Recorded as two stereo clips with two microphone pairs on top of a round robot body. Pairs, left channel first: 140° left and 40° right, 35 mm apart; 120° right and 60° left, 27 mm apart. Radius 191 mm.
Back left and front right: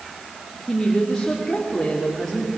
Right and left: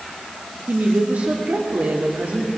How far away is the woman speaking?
About 2.5 m.